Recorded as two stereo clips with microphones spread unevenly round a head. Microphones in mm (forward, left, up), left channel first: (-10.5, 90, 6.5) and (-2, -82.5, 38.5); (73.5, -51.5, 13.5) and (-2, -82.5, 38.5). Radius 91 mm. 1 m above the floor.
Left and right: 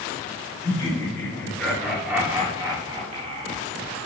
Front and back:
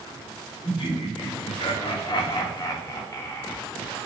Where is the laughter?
25° left, 3 m; by 4.1 s 45° right, 2.5 m.